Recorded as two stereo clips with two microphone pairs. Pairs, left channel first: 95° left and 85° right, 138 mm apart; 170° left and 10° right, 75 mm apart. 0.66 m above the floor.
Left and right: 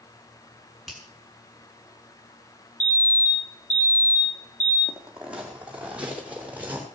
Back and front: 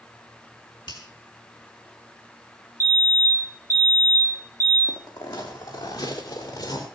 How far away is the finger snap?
About 6.5 m.